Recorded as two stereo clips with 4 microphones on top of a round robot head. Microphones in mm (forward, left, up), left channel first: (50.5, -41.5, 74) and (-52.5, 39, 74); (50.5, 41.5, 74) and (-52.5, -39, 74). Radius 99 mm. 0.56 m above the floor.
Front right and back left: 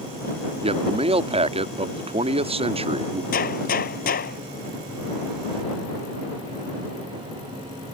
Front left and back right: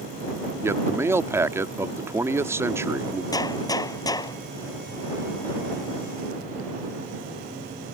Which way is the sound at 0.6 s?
155° left.